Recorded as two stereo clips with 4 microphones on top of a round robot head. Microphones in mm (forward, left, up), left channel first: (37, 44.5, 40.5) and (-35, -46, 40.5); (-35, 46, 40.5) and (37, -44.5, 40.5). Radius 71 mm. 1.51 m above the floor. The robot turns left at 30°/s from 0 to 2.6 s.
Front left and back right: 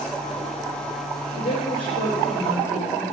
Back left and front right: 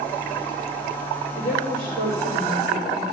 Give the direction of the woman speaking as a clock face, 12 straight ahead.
11 o'clock.